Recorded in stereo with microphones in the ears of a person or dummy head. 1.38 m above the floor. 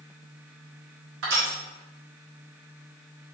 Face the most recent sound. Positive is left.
turn(degrees=-65)  # may be behind; listen again after turning